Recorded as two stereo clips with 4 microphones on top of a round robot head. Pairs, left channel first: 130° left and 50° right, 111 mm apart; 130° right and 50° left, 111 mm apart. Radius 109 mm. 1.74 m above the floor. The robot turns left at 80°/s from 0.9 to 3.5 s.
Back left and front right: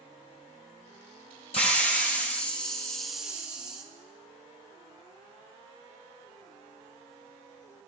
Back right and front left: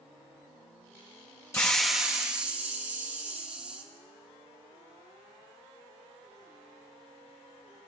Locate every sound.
1.5 s a hiss: 165° left, 0.9 m; by 3.8 s 10° left, 0.9 m